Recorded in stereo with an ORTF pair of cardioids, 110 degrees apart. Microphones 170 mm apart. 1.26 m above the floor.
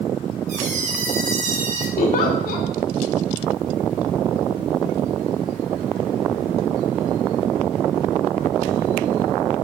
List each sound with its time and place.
0.5 s a squeak: 45° right, 1.3 m
2.0 s a giggle: 60° left, 1.1 m